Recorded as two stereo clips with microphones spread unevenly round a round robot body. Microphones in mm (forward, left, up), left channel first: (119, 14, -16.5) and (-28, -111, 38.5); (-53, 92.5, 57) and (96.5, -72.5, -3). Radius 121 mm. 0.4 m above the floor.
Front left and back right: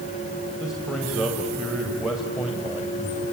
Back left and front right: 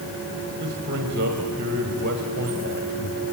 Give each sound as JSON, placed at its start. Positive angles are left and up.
{"t": 0.6, "sound": "a man speaking", "azimuth_deg": -45, "distance_m": 2.0}